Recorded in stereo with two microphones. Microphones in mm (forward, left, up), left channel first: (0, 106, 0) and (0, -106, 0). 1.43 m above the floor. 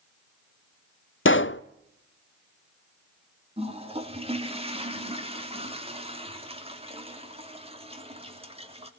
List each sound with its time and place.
1.2 s a pop: 65° left (ahead or behind), 0.5 m
3.6 s a toilet flushing: 30° right (ahead or behind), 3 m